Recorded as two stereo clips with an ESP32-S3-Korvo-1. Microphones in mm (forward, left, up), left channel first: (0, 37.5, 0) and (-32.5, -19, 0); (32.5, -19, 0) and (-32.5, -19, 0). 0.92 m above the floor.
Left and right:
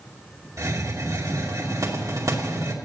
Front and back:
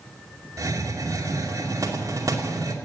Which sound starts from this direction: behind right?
A hiss, at 0.6 s.